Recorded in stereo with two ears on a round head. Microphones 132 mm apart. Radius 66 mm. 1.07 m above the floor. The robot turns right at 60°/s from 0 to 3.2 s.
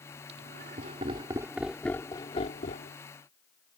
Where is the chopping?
I don't hear chopping.